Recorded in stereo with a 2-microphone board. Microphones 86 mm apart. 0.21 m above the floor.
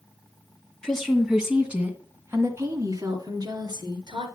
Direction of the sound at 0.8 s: 5° left (ahead or behind).